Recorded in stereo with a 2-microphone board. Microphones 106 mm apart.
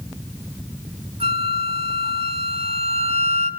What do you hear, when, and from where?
1.2 s a flute: 75° right (ahead or behind), 2.5 m